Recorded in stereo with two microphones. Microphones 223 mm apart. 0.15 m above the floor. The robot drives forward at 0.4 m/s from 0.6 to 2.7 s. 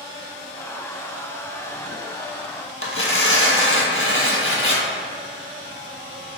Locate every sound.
2.8 s tearing paper: 65° left (ahead or behind), 0.8 m